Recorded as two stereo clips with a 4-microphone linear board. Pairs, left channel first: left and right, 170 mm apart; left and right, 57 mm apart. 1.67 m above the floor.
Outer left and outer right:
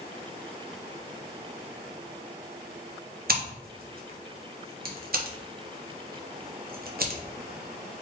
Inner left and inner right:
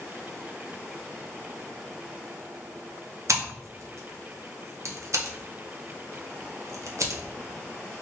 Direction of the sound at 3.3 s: 60° right (ahead or behind).